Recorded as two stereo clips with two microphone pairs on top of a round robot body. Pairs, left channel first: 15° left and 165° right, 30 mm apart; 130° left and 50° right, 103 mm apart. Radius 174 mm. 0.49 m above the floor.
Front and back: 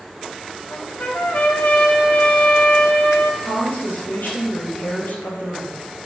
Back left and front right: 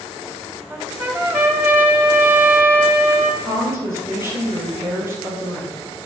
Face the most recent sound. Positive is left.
turn(degrees=15)